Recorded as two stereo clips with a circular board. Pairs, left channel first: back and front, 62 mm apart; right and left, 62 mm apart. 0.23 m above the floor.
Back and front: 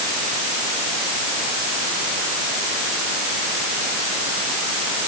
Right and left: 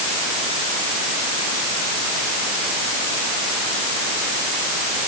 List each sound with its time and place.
Only background noise.